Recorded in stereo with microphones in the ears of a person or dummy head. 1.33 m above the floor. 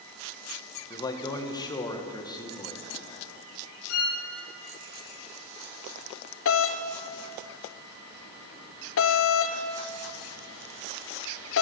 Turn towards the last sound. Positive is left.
turn(degrees=65)  # may be behind; listen again after turning